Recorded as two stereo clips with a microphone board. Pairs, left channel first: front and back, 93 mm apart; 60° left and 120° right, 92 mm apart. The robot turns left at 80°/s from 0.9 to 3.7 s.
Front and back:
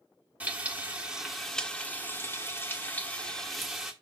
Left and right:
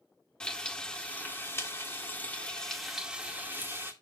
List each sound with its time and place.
0.4 s frying: 125° left, 1.4 m; by 3.9 s 95° right, 1.4 m